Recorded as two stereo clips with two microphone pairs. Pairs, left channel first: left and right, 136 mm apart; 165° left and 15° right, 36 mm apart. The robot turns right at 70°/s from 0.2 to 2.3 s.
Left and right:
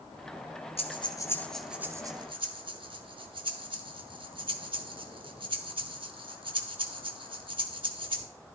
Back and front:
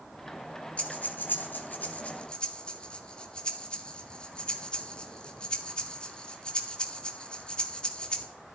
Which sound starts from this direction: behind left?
Breathing, at 0.8 s.